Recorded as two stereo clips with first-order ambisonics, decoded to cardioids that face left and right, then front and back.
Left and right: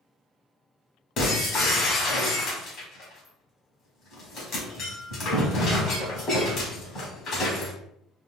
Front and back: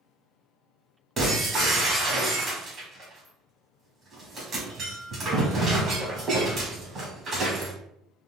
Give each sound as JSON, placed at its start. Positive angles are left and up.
{"t": 1.2, "sound": "breaking glass", "azimuth_deg": 120, "distance_m": 1.5}